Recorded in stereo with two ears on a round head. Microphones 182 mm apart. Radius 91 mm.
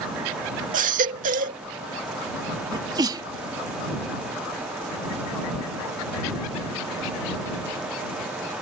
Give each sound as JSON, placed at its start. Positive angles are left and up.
{"t": 0.7, "sound": "a baby crying", "side_deg": -40}
{"t": 2.7, "sound": "a sneeze", "side_deg": -20}